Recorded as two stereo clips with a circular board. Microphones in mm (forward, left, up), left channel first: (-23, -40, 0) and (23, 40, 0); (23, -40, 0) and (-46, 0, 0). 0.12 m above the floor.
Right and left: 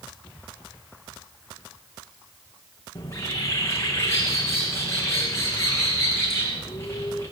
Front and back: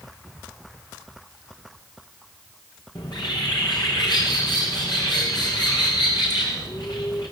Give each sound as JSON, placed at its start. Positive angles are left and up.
{"t": 3.0, "sound": "a bird", "azimuth_deg": -60, "distance_m": 6.0}